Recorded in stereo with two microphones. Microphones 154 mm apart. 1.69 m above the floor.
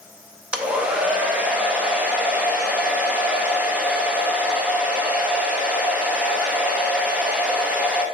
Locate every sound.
0.5 s a hair dryer: 10° right (ahead or behind), 0.8 m